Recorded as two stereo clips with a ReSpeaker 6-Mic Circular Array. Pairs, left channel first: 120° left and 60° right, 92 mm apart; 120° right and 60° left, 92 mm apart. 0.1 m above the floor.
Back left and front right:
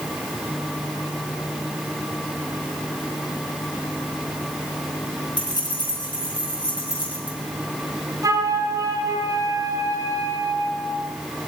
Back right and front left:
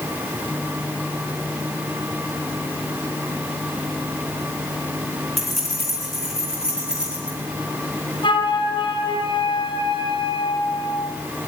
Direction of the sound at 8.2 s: 105° right.